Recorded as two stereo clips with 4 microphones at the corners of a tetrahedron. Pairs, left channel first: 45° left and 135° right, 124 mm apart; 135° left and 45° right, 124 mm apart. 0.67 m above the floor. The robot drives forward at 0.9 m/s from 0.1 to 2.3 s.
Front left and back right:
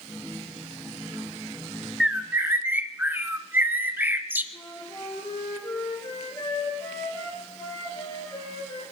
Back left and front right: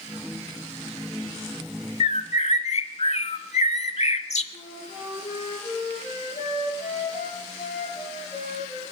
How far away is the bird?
About 0.6 m.